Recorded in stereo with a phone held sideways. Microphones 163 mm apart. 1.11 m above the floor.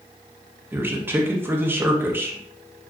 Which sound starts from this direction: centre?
A man speaking, at 0.7 s.